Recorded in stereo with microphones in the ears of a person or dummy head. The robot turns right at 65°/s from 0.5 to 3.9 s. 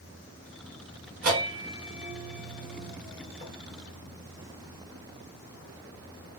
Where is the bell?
50° right (ahead or behind), 1.4 m; by 3.5 s 50° left (ahead or behind), 1.4 m.